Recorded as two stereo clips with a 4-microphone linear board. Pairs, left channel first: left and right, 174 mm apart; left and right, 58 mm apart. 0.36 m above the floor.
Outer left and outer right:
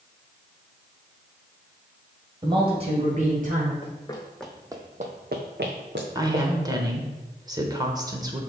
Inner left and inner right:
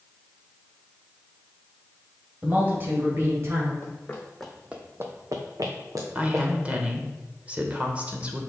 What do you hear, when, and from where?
2.4 s a man speaking: 25° right (ahead or behind), 1.9 m; by 3.7 s 50° right (ahead or behind), 1.9 m
3.8 s running footsteps: 30° left (ahead or behind), 1.3 m; by 6.5 s 80° right, 2 m
6.2 s a woman speaking: 25° right (ahead or behind), 1.0 m